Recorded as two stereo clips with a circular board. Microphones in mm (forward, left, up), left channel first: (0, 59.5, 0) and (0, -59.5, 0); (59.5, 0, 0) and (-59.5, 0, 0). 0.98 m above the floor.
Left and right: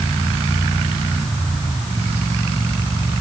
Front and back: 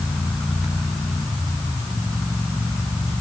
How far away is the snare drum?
I don't hear a snare drum.